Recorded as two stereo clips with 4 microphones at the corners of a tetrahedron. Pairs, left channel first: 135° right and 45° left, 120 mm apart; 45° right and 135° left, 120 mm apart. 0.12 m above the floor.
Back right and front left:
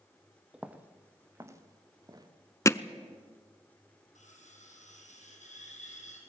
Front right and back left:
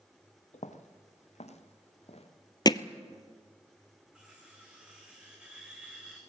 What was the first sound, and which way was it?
Footsteps, 40° right.